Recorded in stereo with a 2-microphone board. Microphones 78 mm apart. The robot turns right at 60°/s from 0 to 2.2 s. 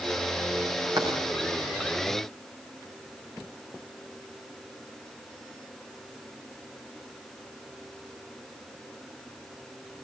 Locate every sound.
1.0 s writing: 55° right (ahead or behind), 7 m; by 1.2 s 40° right (ahead or behind), 7 m